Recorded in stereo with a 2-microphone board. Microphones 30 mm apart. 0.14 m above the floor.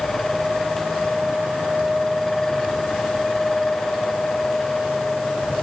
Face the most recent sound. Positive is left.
No sound to turn to.